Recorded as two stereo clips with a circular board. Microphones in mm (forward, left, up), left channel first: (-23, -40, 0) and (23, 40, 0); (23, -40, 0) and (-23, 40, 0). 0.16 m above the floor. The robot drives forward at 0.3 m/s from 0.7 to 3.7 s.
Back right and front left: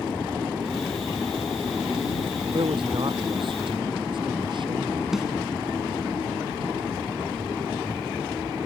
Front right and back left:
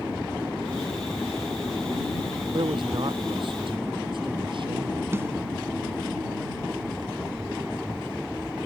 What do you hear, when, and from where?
2.5 s a man speaking: 90° left
5.1 s a snare drum: 145° left